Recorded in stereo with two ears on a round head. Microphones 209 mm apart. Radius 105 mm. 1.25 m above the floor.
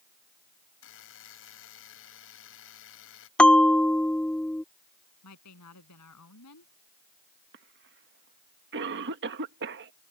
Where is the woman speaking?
85° left.